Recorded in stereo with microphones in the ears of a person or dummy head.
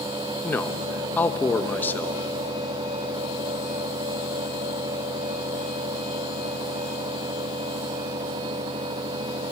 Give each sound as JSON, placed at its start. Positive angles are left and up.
{"t": 0.4, "sound": "a man speaking", "side_deg": 10, "distance_m": 1.2}